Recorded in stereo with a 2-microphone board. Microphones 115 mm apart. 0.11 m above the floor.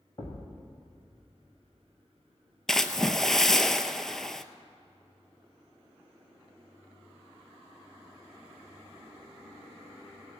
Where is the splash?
5° left (ahead or behind), 0.5 m.